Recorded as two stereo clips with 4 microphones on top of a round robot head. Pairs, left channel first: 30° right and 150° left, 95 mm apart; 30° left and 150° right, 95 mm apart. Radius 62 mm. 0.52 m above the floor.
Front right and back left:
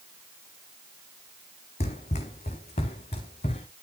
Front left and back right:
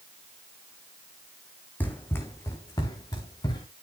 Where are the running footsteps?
40° right, 1.7 m; by 3.7 s 15° right, 3 m.